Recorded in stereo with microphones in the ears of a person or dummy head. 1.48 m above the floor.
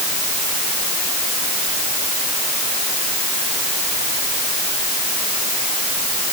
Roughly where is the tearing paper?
No tearing paper in this recording.